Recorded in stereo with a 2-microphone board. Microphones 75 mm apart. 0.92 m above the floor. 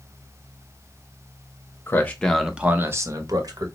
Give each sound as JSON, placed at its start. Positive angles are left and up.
{"t": 1.9, "sound": "a man speaking", "side_deg": 30, "distance_m": 0.8}